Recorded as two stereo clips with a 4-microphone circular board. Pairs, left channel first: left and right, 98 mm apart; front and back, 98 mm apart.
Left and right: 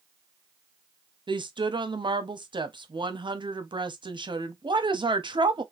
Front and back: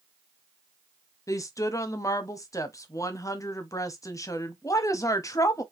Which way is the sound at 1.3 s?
55° right.